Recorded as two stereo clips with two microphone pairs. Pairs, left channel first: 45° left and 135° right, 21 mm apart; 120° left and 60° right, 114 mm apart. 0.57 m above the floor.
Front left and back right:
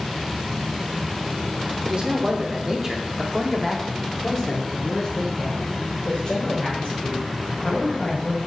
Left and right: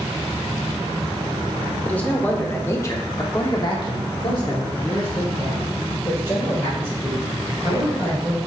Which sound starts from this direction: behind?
A man speaking, at 1.9 s.